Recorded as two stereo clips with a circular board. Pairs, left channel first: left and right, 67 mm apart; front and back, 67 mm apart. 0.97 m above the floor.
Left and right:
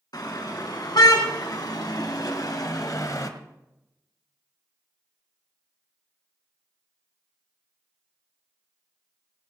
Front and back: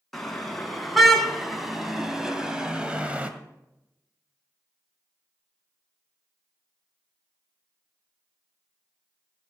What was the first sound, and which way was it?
A car horn, 85° left.